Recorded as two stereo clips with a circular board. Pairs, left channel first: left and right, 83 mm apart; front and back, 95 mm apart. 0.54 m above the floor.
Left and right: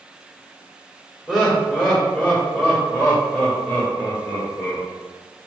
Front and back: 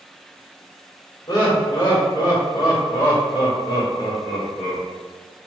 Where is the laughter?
5° left, 1.3 m; by 4.8 s 40° left, 2.5 m.